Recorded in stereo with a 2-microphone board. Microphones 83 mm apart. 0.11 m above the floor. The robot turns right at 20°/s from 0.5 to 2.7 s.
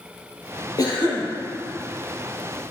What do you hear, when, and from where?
0.8 s a cough: 50° left (ahead or behind), 3 m; by 1.3 s 60° left (ahead or behind), 3 m